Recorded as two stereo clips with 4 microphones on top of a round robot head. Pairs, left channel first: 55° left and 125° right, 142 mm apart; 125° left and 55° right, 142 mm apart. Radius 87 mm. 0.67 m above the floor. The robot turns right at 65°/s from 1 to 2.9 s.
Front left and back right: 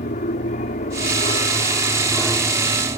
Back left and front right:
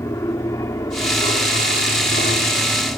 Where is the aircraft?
60° left; by 3.0 s 175° right.